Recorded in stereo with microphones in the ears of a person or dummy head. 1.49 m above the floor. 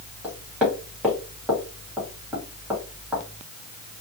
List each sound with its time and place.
0.2 s knocking: 5° right (ahead or behind), 1.3 m